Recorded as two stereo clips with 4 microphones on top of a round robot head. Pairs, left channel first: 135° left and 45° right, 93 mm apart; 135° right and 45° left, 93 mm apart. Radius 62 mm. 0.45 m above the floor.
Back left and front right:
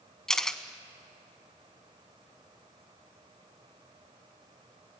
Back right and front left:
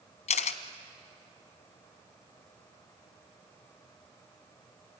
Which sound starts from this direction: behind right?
A camera shutter, at 0.3 s.